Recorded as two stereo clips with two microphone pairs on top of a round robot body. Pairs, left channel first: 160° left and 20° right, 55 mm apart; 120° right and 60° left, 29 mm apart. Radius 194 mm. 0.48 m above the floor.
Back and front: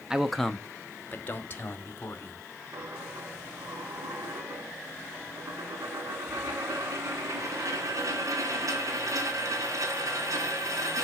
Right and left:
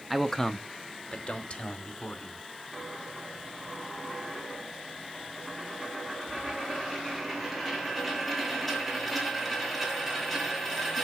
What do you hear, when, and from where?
0.1 s a man speaking: 30° right, 1.1 m; by 2.5 s 155° right, 3 m
2.7 s a dropped coin: 30° right, 3 m